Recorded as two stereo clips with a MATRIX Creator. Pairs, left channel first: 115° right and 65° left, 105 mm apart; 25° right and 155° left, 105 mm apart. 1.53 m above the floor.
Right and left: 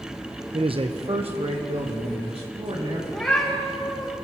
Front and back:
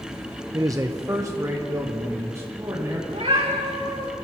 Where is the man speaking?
100° left, 0.7 m; by 3.0 s 95° left, 3.5 m.